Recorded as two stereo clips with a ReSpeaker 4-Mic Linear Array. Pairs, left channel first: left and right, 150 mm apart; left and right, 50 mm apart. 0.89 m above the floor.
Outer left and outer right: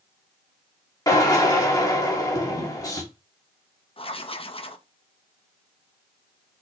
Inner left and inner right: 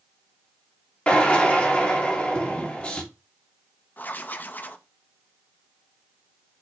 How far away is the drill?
About 2 m.